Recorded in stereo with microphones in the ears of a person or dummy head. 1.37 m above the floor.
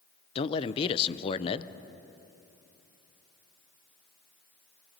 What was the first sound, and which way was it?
A man speaking, 30° left (ahead or behind).